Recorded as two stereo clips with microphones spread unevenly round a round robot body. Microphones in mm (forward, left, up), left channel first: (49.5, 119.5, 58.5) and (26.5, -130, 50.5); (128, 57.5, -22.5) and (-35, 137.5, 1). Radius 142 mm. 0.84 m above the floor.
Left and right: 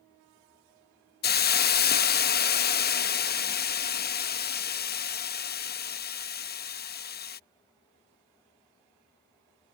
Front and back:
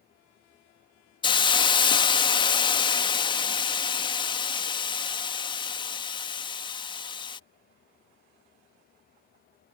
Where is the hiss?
35° left.